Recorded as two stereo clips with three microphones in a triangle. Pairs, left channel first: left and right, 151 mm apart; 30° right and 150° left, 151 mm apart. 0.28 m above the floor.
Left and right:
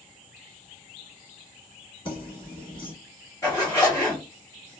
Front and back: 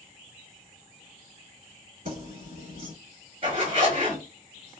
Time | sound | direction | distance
2.0 | keys jangling | 140° left | 1.6 m
3.4 | a zipper | 145° left | 1.9 m